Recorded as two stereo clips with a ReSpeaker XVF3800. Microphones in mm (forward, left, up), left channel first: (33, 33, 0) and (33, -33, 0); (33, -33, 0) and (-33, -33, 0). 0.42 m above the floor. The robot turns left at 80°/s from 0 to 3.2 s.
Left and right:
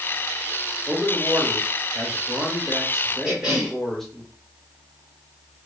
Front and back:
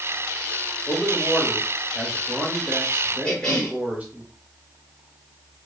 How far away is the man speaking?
About 0.8 m.